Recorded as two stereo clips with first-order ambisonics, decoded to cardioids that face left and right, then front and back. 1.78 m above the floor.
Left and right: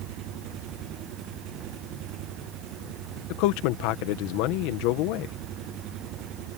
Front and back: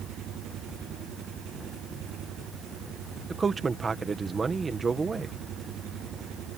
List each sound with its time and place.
0.0 s an engine running: 130° right
3.3 s a man speaking: 105° left